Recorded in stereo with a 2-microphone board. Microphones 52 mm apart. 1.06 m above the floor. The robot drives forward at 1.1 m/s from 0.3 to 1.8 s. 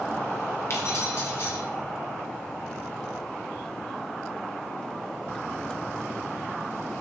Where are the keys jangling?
55° left (ahead or behind), 2.5 m; by 1.6 s 40° left (ahead or behind), 3 m.